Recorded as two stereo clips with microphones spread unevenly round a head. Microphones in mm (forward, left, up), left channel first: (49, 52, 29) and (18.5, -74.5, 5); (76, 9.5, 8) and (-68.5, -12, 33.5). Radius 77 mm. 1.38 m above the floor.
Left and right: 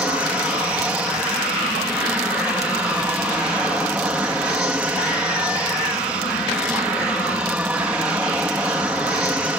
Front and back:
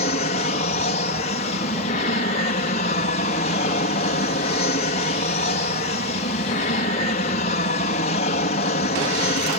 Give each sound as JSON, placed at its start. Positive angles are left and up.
{"t": 0.0, "sound": "an aircraft", "azimuth_deg": -25}